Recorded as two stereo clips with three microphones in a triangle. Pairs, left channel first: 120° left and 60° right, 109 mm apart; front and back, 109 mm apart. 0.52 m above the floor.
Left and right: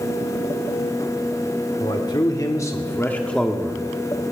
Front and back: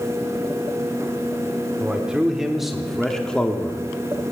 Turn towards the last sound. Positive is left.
turn(degrees=-20)